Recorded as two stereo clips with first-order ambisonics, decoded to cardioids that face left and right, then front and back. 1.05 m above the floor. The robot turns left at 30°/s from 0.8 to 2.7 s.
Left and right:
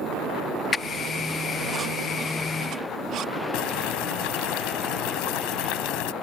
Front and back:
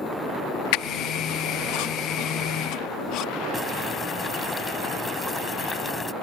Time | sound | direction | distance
0.7 | a squeak | 15° left | ?
3.5 | boiling | 80° left | ?